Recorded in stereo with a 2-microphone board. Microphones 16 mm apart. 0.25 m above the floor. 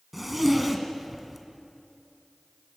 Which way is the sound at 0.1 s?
10° right (ahead or behind).